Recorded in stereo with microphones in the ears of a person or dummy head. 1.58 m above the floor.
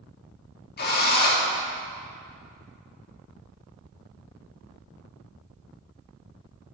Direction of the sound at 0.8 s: 50° left (ahead or behind).